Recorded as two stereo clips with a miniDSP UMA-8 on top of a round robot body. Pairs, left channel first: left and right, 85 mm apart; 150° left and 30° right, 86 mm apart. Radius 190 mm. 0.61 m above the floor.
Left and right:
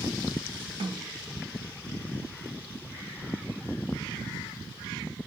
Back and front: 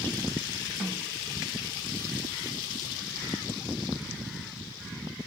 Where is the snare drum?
120° right, 1.4 m.